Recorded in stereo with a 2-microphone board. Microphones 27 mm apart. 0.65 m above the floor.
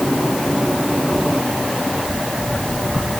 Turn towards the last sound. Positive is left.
No sound to turn to.